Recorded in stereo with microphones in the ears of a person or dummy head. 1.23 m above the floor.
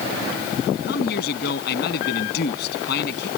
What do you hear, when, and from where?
0.9 s a man speaking: 60° left (ahead or behind)